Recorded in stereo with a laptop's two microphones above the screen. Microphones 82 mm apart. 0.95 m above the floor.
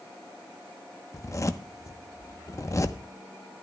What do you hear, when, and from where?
1.1 s a zipper: 40° left (ahead or behind), 0.8 m